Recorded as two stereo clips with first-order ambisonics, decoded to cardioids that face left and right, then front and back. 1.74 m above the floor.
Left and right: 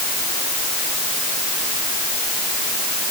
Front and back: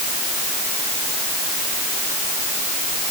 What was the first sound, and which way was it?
Only background noise.